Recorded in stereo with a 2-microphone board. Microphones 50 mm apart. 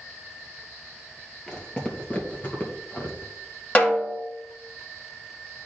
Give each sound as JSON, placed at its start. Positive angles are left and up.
{"t": 1.5, "sound": "footsteps", "side_deg": 15, "distance_m": 1.8}
{"t": 3.8, "sound": "a snare drum", "side_deg": 30, "distance_m": 1.5}